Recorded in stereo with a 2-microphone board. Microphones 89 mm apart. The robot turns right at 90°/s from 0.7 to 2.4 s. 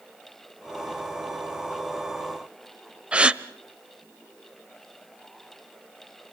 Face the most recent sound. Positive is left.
turn(degrees=-15)  # may be behind; listen again after turning